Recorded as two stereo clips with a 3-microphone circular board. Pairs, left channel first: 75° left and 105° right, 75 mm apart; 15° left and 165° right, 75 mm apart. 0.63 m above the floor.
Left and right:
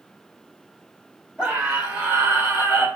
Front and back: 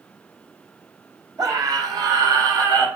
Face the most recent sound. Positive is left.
turn(degrees=-160)